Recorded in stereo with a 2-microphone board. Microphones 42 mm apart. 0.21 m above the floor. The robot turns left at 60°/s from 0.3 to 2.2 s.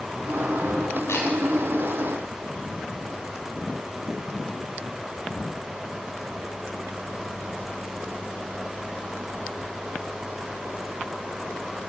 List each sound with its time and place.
1.1 s a camera shutter: 85° left, 8.5 m; by 1.3 s 75° left (ahead or behind), 8.5 m